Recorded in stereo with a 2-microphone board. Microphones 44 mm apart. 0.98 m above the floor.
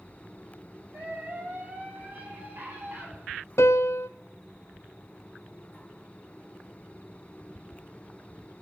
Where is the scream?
50° right (ahead or behind), 6.5 m; by 3.1 s 60° right (ahead or behind), 8 m.